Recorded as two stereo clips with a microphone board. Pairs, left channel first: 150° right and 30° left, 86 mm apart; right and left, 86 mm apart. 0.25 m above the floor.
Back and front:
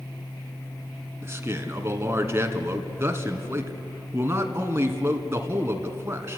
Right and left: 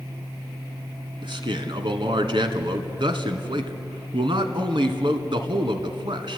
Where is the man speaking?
90° left, 2.5 m.